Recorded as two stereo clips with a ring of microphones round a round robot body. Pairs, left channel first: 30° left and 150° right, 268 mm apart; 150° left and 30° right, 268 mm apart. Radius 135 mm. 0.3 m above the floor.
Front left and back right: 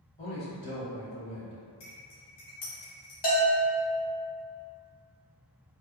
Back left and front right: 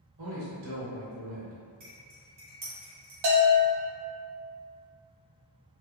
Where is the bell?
30° right, 0.9 m.